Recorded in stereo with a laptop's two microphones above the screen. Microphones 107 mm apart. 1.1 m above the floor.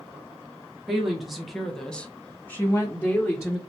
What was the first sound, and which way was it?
A woman speaking, 5° right (ahead or behind).